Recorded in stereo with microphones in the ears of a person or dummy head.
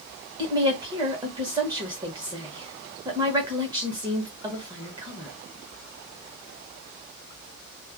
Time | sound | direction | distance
0.4 | a woman speaking | 25° right (ahead or behind) | 1.1 m